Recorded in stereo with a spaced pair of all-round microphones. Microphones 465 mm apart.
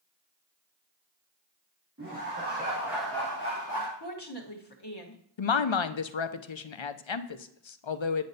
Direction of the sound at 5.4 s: 75° left (ahead or behind).